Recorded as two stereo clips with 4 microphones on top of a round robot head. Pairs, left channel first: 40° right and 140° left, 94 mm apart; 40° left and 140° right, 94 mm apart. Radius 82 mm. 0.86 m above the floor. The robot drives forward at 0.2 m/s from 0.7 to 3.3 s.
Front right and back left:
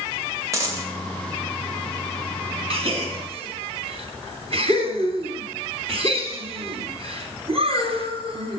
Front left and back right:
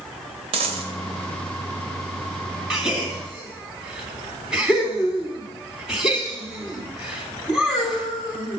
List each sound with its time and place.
0.5 s a dropped coin: 160° right, 2 m
2.7 s a gasp: 140° left, 3 m